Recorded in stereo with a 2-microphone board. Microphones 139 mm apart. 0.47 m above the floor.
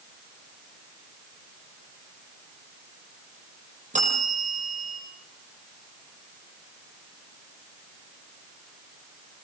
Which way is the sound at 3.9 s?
60° right (ahead or behind).